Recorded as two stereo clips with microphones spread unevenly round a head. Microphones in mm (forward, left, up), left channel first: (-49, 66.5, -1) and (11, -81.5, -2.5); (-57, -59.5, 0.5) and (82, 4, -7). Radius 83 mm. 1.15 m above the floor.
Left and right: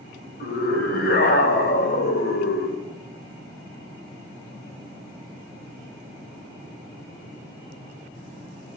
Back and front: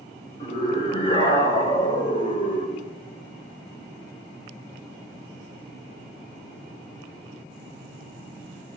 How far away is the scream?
About 6 m.